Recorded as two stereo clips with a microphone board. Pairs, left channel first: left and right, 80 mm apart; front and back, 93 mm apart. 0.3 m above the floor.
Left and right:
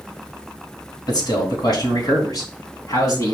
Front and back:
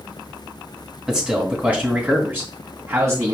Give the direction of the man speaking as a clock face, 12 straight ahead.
9 o'clock.